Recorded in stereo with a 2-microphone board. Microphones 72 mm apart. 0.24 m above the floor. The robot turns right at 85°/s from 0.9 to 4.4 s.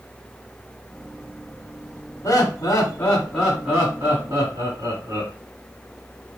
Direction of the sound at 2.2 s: 65° left.